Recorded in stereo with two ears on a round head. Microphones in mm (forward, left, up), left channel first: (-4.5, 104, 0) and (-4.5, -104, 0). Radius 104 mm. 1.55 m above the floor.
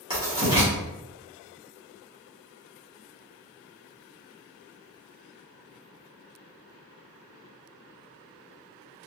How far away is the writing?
About 1.9 m.